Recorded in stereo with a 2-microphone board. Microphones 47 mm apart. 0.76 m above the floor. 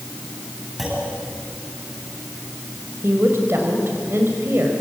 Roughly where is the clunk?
Centre.